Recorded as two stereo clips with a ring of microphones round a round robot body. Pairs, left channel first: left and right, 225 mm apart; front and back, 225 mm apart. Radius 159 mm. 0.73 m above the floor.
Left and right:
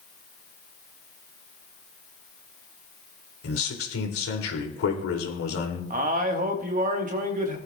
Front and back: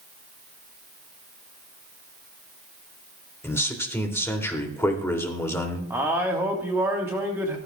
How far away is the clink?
I don't hear a clink.